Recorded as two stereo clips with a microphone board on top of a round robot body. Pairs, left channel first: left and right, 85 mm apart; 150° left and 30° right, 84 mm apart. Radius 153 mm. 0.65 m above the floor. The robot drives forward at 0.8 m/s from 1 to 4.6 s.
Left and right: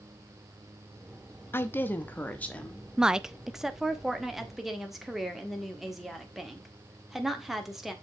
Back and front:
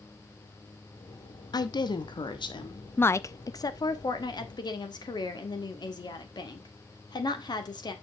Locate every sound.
1.5 s a woman speaking: 145° left, 1.1 m; by 2.9 s 165° left, 2.0 m
3.0 s a woman speaking: 165° right, 0.6 m; by 7.9 s straight behind, 1.6 m